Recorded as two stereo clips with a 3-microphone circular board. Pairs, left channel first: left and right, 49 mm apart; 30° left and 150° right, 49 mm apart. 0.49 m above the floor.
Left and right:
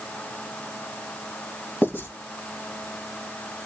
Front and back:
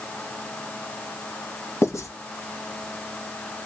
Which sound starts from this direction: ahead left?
Writing, at 1.8 s.